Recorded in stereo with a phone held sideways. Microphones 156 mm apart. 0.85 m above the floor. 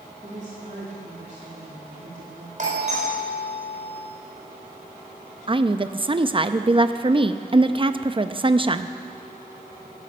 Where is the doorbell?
55° right (ahead or behind), 4 m.